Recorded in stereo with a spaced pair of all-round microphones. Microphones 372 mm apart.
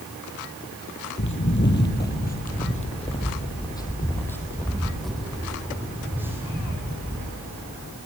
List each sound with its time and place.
1.2 s footsteps: 35° left (ahead or behind), 2.0 m; by 7.3 s 10° right (ahead or behind), 3.5 m